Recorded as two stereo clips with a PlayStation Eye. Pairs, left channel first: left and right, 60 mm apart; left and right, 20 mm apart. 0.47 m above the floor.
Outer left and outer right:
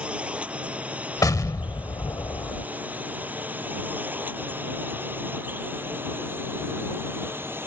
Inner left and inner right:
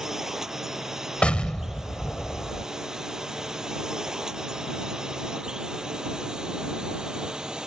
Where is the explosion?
75° left (ahead or behind).